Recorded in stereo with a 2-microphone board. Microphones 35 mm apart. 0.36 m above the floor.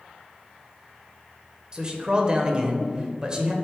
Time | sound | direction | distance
1.7 | a man speaking | 25° right (ahead or behind) | 0.9 m